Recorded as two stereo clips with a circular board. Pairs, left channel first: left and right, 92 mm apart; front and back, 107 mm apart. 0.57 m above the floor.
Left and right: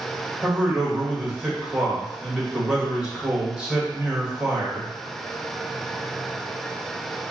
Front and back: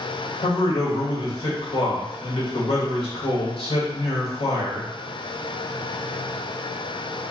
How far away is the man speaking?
About 2 m.